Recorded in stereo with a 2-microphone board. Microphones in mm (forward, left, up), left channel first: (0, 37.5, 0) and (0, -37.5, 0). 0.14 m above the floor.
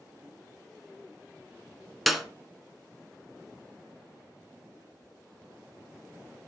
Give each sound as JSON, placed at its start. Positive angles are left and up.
{"t": 2.1, "sound": "a clap", "side_deg": 0, "distance_m": 1.0}